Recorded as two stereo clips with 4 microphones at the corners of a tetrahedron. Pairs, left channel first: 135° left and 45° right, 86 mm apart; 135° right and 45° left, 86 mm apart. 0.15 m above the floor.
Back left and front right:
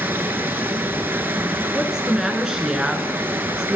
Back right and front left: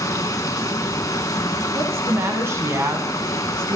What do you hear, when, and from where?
0.0 s running water: 100° right, 0.8 m
1.7 s a woman speaking: 30° left, 1.1 m